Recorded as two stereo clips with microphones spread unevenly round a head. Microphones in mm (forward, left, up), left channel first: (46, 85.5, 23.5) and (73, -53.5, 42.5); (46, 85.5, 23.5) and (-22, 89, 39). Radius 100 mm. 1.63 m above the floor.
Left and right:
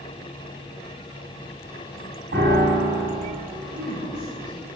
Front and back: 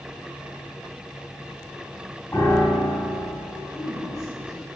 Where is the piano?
85° right, 4 m.